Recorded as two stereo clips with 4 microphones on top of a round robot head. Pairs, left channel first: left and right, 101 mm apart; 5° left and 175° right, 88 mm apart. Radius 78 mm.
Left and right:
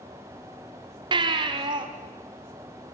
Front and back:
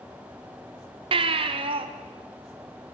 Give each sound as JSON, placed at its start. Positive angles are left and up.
{"t": 1.1, "sound": "a baby crying", "azimuth_deg": -140, "distance_m": 1.4}